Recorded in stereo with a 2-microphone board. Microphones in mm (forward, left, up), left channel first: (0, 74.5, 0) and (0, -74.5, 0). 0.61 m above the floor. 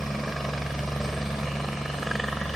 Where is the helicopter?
Centre (ahead or behind).